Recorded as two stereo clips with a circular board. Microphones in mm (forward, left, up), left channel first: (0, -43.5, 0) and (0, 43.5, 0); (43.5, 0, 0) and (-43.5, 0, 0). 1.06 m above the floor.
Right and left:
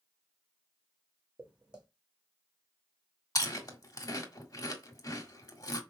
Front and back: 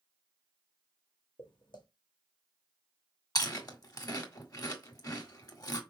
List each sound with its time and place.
1.4 s footsteps: 15° left, 2.5 m
3.4 s chewing: 45° right, 1.6 m